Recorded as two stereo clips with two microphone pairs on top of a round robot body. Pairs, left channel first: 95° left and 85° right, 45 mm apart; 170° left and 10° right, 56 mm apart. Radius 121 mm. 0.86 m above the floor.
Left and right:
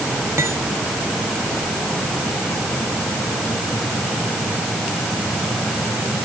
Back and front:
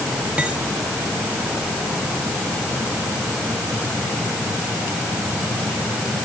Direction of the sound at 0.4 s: 80° right.